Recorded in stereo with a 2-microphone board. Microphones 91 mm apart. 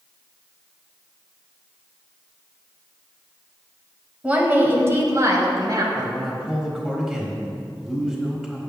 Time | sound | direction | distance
4.2 | a woman speaking | 15° right (ahead or behind) | 1.4 m
6.0 | a man speaking | centre (ahead or behind) | 1.4 m